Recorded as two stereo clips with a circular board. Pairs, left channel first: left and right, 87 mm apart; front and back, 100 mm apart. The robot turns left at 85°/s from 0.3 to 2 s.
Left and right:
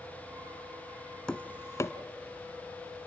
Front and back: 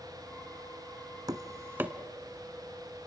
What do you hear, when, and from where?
1.3 s tapping: 165° left, 0.8 m; by 1.9 s 110° left, 0.8 m